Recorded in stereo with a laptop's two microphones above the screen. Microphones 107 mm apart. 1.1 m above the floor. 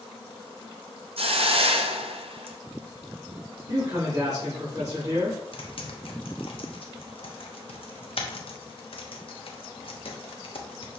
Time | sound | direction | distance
1.2 | a hiss | 65° right (ahead or behind) | 0.5 m
3.7 | a man speaking | 30° right (ahead or behind) | 2.5 m
5.5 | typing on a keyboard | 60° left (ahead or behind) | 0.8 m